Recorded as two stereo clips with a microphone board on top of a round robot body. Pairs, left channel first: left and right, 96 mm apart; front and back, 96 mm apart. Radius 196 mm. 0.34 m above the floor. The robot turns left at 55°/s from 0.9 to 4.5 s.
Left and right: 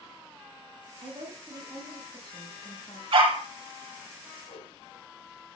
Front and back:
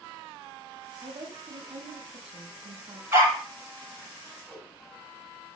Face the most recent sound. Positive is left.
turn(degrees=80)